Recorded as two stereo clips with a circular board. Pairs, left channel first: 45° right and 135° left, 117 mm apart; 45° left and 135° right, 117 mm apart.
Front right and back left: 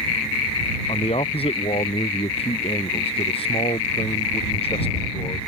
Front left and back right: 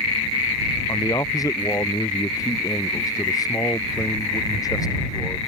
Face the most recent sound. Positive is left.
turn(degrees=-15)